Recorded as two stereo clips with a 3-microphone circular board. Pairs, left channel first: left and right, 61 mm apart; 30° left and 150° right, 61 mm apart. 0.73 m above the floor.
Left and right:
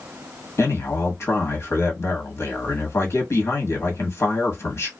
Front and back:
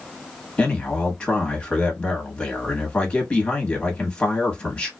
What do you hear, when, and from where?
0.6 s a man speaking: 95° left, 1.1 m